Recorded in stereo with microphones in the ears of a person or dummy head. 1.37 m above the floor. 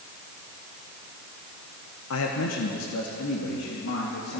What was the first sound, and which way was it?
A man speaking, 75° left (ahead or behind).